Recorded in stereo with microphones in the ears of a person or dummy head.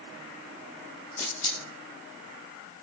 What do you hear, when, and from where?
1.2 s a camera shutter: 25° left (ahead or behind), 3.5 m